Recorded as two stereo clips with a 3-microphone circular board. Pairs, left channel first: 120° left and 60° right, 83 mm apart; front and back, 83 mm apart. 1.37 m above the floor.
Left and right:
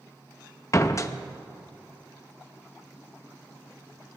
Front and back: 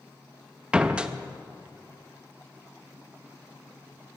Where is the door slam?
110° left, 0.7 m.